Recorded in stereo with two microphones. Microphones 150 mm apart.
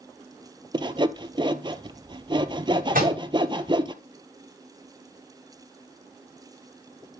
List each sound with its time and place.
0.7 s sawing: 35° right (ahead or behind), 0.6 m
2.9 s a microwave: 75° right (ahead or behind), 7.5 m